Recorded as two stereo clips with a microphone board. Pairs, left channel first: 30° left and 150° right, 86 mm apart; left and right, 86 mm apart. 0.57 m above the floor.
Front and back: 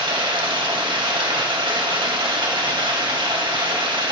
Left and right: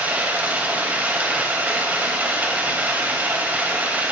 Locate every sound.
0.0 s running water: 155° right, 3 m